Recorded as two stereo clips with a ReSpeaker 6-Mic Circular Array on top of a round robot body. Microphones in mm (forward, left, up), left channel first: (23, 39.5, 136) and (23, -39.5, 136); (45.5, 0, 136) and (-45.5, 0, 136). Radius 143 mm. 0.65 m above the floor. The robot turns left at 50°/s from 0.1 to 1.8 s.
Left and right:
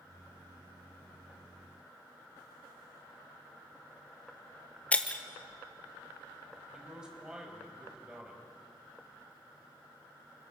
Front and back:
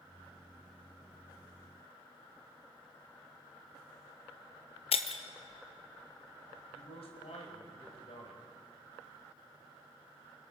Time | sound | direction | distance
4.9 | breaking glass | 15° left | 1.2 m
6.7 | a man speaking | 10° right | 5 m